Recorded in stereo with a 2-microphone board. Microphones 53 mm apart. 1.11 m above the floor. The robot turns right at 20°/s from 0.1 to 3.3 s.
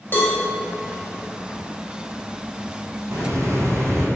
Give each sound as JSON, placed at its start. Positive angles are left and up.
{"t": 0.1, "sound": "a cowbell", "side_deg": 40, "distance_m": 0.7}
{"t": 3.1, "sound": "a hiss", "side_deg": -55, "distance_m": 0.5}